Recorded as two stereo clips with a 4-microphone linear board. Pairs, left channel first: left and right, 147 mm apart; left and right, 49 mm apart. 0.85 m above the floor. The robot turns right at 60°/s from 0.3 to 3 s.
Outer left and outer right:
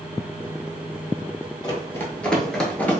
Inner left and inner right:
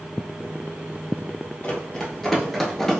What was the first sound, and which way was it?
Running footsteps, 30° left (ahead or behind).